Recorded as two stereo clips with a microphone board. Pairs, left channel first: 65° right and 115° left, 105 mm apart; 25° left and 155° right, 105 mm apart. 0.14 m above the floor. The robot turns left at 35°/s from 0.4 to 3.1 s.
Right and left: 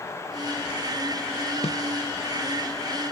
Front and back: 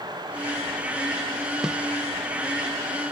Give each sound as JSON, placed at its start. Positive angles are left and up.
{"t": 1.6, "sound": "a snare drum", "azimuth_deg": -70}